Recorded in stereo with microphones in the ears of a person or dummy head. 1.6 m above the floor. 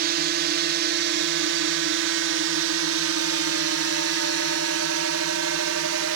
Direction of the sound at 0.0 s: 50° right (ahead or behind).